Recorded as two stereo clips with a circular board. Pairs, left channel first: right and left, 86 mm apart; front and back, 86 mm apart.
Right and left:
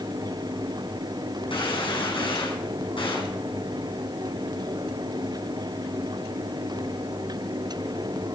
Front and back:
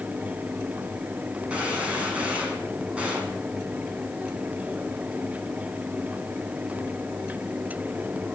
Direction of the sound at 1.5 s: 105° right.